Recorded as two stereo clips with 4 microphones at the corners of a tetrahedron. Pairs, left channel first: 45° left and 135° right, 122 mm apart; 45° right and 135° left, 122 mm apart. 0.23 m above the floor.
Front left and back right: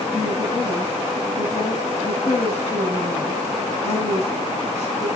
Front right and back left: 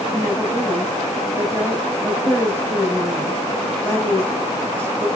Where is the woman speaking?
65° left, 4.5 m.